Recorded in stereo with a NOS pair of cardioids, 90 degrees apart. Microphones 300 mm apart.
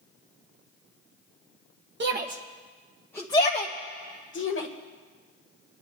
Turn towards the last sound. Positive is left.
turn(degrees=45)